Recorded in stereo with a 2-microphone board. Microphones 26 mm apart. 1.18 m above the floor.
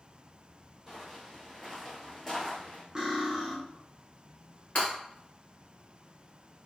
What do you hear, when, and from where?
0.9 s footsteps: centre (ahead or behind), 1.6 m; by 2.8 s 25° left (ahead or behind), 1.3 m
3.0 s cutlery clinking: 25° right (ahead or behind), 0.8 m
4.8 s breaking glass: 60° left (ahead or behind), 1.3 m